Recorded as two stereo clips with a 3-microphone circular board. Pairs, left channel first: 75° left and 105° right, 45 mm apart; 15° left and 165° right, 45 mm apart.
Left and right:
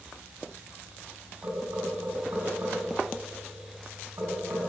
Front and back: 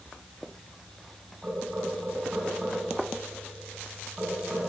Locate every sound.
1.4 s knocking: 95° right, 5 m